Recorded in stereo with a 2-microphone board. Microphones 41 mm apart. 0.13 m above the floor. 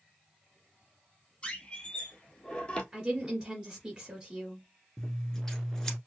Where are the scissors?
15° left (ahead or behind), 1.1 m.